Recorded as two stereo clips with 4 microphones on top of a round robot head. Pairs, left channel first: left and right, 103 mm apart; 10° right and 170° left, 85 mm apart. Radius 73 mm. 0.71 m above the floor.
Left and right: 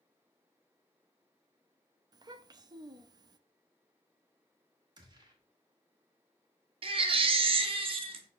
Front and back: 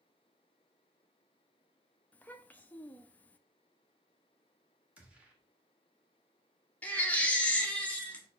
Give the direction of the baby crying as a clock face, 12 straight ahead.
3 o'clock.